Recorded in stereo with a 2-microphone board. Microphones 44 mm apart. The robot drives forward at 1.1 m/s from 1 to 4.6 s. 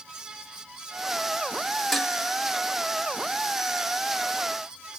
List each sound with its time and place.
1.9 s dishes clattering: 5° left (ahead or behind), 1.4 m